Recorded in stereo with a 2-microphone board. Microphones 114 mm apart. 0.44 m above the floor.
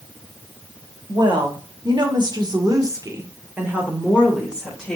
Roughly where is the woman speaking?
Right.